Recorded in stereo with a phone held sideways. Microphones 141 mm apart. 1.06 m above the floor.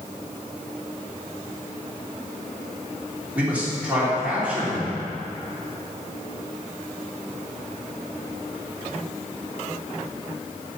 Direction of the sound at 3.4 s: 10° right (ahead or behind).